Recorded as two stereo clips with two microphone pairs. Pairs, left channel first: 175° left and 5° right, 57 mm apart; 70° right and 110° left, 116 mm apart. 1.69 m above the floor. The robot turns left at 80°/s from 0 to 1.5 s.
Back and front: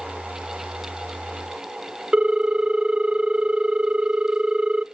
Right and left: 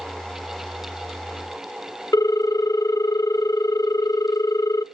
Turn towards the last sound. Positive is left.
turn(degrees=-60)